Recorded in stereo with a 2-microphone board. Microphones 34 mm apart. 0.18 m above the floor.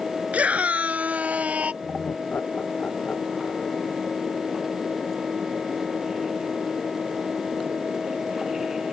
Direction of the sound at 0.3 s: 45° right (ahead or behind).